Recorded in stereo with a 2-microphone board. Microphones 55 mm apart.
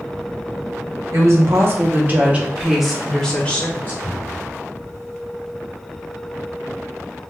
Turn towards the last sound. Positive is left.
turn(degrees=-30)  # may be behind; listen again after turning